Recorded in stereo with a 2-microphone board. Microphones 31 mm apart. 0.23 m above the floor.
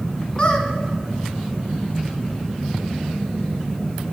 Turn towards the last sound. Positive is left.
turn(degrees=35)  # may be behind; listen again after turning